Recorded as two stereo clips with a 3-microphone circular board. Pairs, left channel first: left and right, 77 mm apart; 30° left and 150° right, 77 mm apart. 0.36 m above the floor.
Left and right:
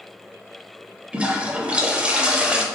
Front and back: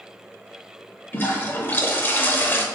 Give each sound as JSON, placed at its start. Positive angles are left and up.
{"t": 1.1, "sound": "a toilet flushing", "azimuth_deg": -25, "distance_m": 0.6}